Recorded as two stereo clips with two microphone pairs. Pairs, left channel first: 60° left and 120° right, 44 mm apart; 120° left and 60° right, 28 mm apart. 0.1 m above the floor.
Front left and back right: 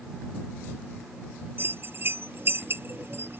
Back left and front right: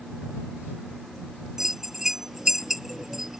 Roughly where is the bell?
Behind right.